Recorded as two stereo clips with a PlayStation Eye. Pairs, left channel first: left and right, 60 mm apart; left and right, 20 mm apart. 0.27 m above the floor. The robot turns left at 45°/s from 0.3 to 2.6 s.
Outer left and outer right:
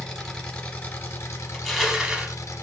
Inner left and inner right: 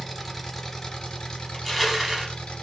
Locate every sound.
0.0 s an engine running: 170° left, 1.2 m; by 2.6 s 70° left, 1.2 m
1.5 s crushing: 10° left, 0.7 m; by 2.4 s 30° right, 0.7 m